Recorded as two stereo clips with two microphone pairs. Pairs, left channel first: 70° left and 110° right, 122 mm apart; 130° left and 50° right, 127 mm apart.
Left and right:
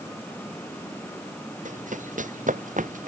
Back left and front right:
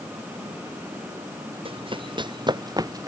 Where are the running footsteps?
95° right; by 3.1 s 110° right.